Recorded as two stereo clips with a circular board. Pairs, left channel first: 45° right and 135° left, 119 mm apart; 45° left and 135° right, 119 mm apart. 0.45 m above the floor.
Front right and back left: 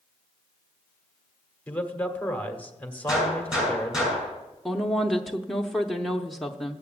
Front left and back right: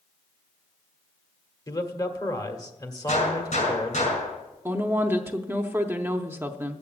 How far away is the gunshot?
About 5 m.